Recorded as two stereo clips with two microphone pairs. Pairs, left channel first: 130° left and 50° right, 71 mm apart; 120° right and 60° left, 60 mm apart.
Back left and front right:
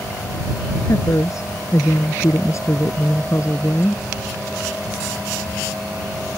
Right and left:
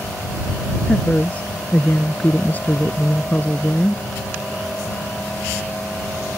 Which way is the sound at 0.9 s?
170° left.